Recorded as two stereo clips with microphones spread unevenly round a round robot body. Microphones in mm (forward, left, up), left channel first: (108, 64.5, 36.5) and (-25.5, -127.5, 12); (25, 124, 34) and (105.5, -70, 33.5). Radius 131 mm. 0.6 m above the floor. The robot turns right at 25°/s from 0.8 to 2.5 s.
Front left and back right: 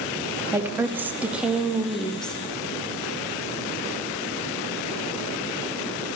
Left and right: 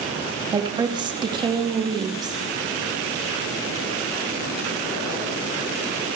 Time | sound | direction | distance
0.5 | a woman speaking | 80° right | 0.6 m